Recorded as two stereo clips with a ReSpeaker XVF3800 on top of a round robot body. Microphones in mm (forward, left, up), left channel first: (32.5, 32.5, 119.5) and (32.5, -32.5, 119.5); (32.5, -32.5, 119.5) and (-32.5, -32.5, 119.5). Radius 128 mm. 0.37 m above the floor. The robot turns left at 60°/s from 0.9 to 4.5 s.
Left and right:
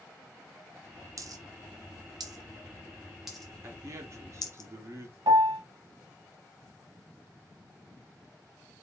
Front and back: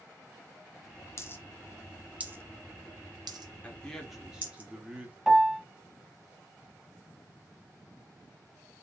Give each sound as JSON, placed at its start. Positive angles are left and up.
{"t": 1.2, "sound": "a dropped coin", "azimuth_deg": -50, "distance_m": 0.6}
{"t": 3.6, "sound": "a man speaking", "azimuth_deg": -60, "distance_m": 1.1}
{"t": 5.3, "sound": "a piano", "azimuth_deg": -90, "distance_m": 0.7}